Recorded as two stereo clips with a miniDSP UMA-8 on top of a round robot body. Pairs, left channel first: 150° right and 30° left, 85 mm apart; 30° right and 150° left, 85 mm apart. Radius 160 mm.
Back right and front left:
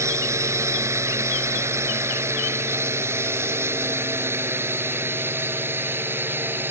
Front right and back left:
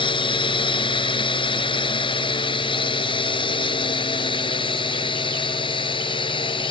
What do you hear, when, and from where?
0.0 s a drone: 25° right; by 6.7 s 35° right